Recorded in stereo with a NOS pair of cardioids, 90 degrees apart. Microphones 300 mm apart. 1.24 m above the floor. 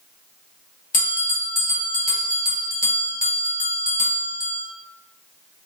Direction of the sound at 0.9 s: 30° left.